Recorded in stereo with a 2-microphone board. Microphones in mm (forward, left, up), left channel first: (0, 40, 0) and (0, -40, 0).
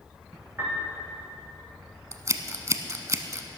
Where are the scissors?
40° right (ahead or behind), 0.7 m.